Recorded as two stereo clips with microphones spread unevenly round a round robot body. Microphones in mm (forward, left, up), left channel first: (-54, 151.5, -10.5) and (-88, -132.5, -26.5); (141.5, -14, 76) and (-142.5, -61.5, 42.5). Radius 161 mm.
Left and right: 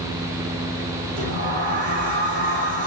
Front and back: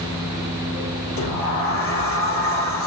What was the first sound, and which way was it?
A sliding door, 35° right.